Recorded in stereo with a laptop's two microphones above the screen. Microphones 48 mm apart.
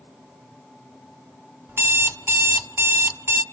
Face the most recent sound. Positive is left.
turn(degrees=-60)  # may be behind; listen again after turning